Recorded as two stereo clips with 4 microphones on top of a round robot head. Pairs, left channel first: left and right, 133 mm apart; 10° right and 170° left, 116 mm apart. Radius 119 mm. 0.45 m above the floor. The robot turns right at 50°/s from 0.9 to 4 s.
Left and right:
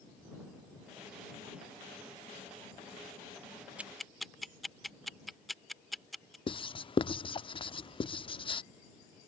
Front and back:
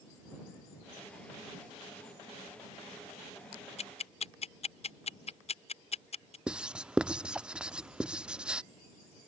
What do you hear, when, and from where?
3.8 s ticking: 10° right; by 6.4 s straight ahead
6.5 s writing: 90° left